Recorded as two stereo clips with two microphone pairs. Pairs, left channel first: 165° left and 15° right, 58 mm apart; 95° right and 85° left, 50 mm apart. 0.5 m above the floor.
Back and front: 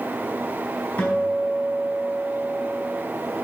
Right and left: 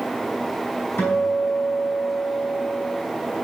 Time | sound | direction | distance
1.0 | a guitar | 135° right | 3.5 m